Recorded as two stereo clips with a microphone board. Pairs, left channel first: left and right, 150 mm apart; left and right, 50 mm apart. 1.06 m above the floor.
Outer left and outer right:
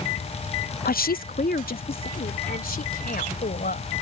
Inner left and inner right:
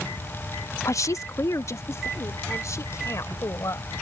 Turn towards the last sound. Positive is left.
turn(degrees=75)  # may be behind; listen again after turning